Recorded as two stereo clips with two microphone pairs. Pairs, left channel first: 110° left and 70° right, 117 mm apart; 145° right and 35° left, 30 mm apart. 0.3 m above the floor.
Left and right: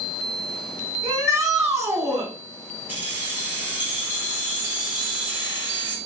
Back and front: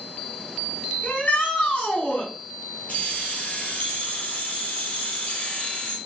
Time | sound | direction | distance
1.0 | a shout | 130° right | 3 m
2.9 | keys jangling | 140° right | 2.0 m